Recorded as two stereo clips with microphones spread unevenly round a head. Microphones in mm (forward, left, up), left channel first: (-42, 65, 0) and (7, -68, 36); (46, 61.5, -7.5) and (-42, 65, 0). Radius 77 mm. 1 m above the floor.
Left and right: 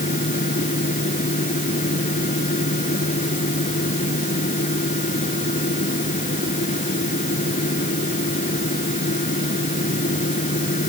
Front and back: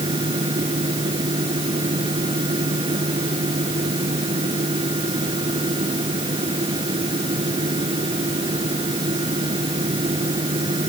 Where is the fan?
150° left.